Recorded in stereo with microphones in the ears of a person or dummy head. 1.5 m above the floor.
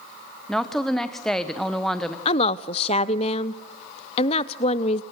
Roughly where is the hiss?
I don't hear a hiss.